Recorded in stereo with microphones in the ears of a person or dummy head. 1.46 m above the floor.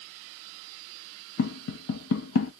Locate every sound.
1.4 s tapping: 65° left (ahead or behind), 0.7 m